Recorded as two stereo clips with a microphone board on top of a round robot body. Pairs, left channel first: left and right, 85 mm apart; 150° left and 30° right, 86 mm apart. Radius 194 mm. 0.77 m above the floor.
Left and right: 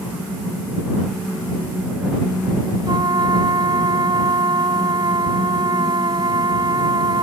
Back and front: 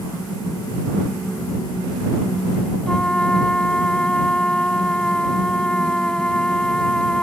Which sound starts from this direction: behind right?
A trumpet, at 2.9 s.